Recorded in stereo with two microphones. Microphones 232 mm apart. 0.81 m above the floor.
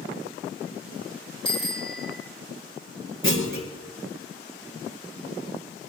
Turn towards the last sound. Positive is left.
turn(degrees=-60)  # may be behind; listen again after turning